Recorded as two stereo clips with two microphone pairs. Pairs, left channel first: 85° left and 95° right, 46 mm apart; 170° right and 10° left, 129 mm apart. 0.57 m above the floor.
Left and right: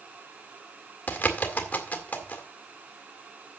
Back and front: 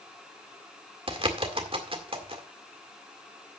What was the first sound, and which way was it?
A bird, 45° left.